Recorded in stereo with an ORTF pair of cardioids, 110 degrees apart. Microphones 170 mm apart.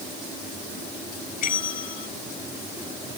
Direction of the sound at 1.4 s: 65° left.